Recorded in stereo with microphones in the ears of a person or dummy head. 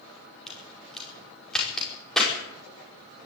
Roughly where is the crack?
Centre.